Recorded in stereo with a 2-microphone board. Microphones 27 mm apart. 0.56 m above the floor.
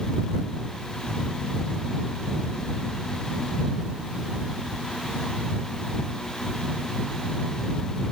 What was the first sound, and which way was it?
Only background noise.